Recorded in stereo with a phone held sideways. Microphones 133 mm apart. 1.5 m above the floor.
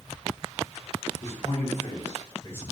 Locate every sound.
1.2 s a man speaking: 60° left (ahead or behind), 1.0 m; by 2.6 s 20° left (ahead or behind), 0.6 m